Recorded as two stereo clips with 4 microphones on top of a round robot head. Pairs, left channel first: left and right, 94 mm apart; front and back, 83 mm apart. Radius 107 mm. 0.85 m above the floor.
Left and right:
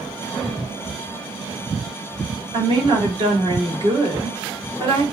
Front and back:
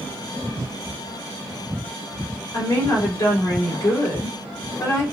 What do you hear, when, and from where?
2.5 s a woman speaking: 55° right, 1.8 m